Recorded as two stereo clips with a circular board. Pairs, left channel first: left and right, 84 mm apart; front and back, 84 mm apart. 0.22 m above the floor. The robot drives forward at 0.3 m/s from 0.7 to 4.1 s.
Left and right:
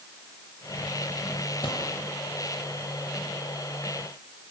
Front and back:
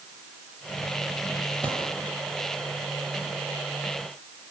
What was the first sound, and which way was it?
A gunshot, 75° left.